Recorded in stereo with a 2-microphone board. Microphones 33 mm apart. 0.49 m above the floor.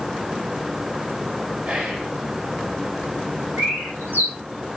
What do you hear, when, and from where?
1.6 s whispering: 45° right (ahead or behind), 5 m
3.6 s a bird: 80° right, 5.5 m